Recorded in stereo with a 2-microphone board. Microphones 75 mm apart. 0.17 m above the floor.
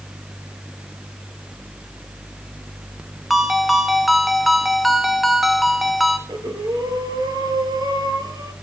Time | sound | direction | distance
3.3 | a ringtone | centre (ahead or behind) | 0.8 m
6.3 | breathing | 60° right (ahead or behind) | 1.5 m